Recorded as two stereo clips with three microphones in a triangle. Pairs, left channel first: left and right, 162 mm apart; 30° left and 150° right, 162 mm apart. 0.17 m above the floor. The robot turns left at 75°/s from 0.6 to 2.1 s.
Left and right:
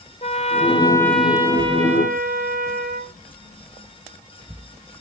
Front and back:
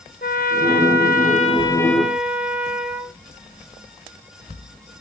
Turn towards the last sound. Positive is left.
turn(degrees=-65)